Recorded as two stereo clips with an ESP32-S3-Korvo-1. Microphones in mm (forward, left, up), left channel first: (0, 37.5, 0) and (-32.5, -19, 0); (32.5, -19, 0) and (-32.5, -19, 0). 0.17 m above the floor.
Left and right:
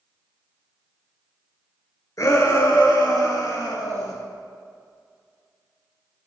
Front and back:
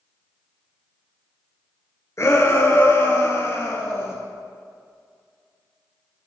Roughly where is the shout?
Ahead left.